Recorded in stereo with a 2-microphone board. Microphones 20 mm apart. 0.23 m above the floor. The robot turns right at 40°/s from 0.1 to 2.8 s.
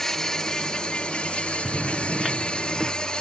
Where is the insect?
25° left, 0.8 m; by 3.2 s 135° left, 0.8 m.